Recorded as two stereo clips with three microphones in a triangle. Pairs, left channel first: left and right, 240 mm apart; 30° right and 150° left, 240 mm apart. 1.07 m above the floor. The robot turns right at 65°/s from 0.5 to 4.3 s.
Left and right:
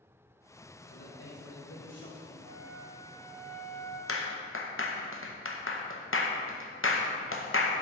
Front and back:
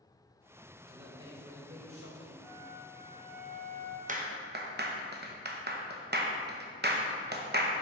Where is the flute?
80° right, 1.8 m; by 4.0 s 20° left, 1.8 m.